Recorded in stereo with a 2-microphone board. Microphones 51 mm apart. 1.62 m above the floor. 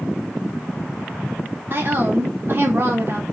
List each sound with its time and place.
1.7 s a woman speaking: 45° right (ahead or behind), 2 m; by 3.2 s 50° right (ahead or behind), 1.2 m